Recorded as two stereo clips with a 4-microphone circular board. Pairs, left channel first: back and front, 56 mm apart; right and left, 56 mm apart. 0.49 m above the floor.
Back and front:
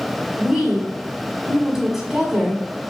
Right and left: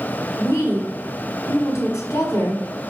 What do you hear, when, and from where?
0.4 s a woman speaking: 75° right, 4 m